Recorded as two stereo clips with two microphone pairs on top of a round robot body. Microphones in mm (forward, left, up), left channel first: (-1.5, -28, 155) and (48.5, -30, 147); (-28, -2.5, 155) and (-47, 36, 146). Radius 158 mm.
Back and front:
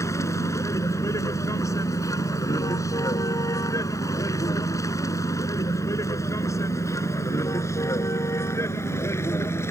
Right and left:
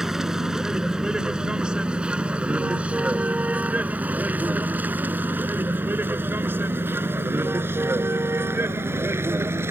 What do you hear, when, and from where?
0.0 s a vehicle: 165° right; by 9.7 s 140° left